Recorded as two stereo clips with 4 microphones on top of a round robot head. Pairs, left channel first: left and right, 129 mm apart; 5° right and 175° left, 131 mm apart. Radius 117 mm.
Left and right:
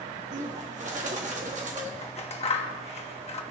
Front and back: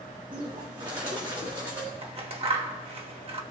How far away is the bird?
About 1.6 m.